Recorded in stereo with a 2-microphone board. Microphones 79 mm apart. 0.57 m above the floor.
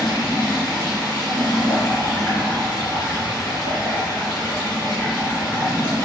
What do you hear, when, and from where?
0.0 s running water: 65° left (ahead or behind), 2.0 m